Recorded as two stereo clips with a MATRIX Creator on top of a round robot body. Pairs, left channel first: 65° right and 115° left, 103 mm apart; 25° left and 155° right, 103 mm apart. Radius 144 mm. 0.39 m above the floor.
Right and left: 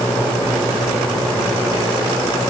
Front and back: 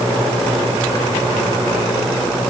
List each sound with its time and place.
Only background noise.